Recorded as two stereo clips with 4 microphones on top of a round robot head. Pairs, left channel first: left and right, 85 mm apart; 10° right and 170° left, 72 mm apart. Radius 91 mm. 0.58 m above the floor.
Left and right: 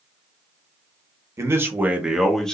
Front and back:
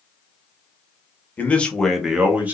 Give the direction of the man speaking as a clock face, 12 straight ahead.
2 o'clock.